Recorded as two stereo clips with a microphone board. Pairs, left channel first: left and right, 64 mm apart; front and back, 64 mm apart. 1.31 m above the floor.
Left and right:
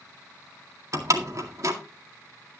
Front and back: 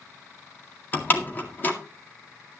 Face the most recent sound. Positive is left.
turn(degrees=-60)